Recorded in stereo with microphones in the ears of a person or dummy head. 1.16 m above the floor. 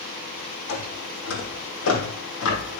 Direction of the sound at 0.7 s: 70° left (ahead or behind).